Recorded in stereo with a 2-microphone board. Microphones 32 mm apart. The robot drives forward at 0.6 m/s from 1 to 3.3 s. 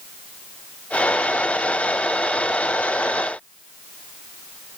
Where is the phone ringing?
I don't hear a phone ringing.